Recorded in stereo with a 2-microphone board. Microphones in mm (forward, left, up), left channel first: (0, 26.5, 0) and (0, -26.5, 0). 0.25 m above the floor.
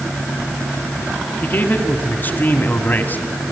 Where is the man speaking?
35° left (ahead or behind), 2 m.